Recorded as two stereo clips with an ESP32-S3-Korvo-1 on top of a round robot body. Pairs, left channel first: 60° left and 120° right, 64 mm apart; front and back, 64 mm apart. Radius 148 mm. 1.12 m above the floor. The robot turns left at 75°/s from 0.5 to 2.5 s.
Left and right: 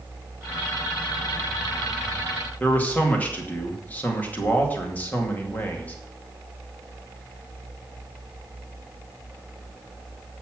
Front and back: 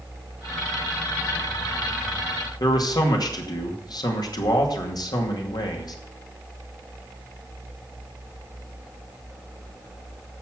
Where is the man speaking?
5° right, 2.5 m.